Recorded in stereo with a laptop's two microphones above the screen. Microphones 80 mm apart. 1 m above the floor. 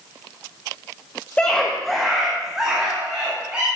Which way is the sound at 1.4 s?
15° left (ahead or behind).